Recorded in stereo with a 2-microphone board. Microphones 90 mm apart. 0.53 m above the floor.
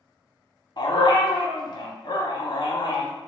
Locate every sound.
0.8 s a dog barking: 60° left (ahead or behind), 0.7 m